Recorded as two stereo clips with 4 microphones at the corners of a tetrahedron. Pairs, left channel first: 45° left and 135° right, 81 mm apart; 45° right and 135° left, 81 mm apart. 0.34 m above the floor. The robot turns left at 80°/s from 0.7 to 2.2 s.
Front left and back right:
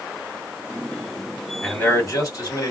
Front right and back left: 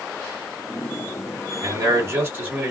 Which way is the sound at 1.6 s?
125° left.